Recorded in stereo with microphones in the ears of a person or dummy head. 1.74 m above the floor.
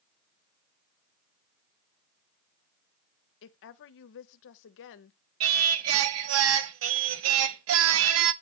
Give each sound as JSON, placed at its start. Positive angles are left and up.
{"t": 3.4, "sound": "a woman speaking", "side_deg": 65, "distance_m": 0.6}
{"t": 5.4, "sound": "singing", "side_deg": -75, "distance_m": 0.5}